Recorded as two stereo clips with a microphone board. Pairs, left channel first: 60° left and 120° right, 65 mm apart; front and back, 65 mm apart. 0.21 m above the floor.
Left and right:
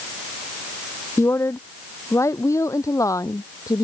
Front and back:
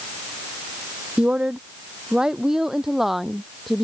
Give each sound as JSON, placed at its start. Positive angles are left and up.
{"t": 1.2, "sound": "a woman speaking", "azimuth_deg": 105}